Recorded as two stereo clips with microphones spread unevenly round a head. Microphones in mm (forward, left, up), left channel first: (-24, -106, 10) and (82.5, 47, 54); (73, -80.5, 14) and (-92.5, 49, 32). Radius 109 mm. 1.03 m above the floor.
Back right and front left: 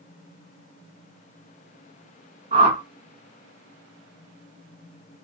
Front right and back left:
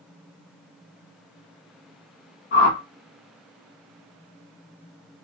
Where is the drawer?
No drawer in this recording.